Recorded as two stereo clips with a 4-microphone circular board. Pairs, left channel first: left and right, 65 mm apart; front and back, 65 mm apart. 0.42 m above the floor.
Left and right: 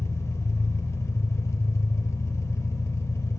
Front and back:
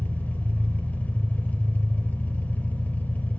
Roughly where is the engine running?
Ahead left.